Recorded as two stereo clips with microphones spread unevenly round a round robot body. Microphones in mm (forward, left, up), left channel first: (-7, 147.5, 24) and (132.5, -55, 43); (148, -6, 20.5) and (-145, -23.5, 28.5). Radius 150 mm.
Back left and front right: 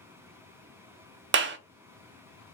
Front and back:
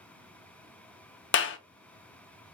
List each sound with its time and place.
1.3 s a clap: 25° right, 0.6 m